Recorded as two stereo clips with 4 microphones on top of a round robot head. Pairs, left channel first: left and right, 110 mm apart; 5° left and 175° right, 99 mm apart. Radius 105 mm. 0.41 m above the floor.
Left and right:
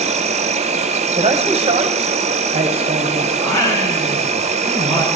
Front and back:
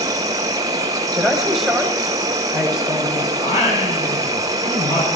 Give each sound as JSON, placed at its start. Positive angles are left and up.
{"t": 0.0, "sound": "an insect", "azimuth_deg": -115, "distance_m": 0.9}
{"t": 1.2, "sound": "a man speaking", "azimuth_deg": -85, "distance_m": 2.0}
{"t": 3.4, "sound": "singing", "azimuth_deg": 30, "distance_m": 4.5}